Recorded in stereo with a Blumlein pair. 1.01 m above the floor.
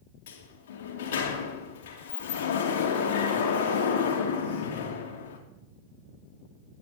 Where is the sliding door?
55° left, 2.5 m.